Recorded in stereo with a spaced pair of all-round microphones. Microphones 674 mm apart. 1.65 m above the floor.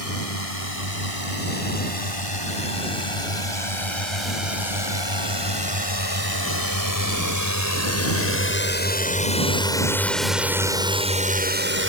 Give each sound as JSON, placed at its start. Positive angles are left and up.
{"t": 0.0, "sound": "a drone", "side_deg": 55}